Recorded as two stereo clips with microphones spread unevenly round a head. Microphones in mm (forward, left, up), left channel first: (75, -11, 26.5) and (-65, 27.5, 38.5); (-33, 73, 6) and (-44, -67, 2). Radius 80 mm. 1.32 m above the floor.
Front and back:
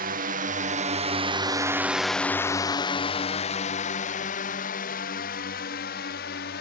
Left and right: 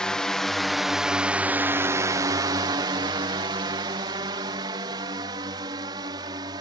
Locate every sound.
0.0 s a drone: 170° left; by 6.6 s 25° right